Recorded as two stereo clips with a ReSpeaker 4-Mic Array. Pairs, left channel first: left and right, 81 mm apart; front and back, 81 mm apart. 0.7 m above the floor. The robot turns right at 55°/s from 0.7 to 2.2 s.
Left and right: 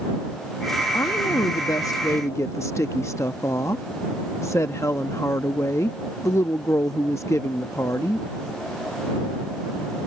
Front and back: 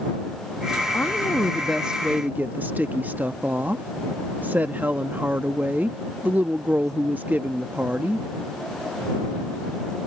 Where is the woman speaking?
55° left; by 8.3 s 125° left.